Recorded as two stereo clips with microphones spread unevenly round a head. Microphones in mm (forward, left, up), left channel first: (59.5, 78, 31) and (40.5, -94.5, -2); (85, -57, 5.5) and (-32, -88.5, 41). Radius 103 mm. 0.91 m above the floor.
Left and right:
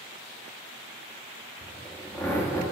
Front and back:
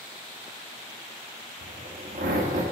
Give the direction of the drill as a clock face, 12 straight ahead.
6 o'clock.